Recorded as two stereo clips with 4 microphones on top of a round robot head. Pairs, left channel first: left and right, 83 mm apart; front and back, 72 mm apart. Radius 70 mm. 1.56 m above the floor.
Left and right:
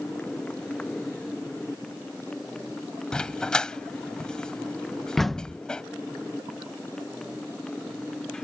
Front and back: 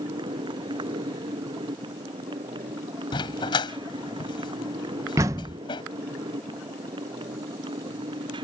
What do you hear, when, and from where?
0.0 s a motorcycle: 175° left
3.1 s a dog barking: 10° left
5.2 s a door slam: 175° left